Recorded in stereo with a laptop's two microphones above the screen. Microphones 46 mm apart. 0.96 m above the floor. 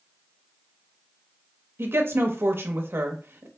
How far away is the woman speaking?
About 0.9 m.